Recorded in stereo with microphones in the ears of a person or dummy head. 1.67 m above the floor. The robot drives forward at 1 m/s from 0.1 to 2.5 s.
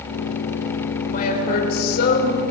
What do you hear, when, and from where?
1.1 s a woman speaking: 50° left (ahead or behind), 6 m; by 2.4 s 65° left (ahead or behind), 5 m